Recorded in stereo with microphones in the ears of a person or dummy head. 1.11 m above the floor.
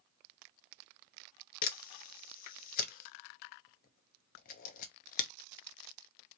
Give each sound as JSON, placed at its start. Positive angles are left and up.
{"t": 1.6, "sound": "a camera shutter", "side_deg": 50, "distance_m": 0.9}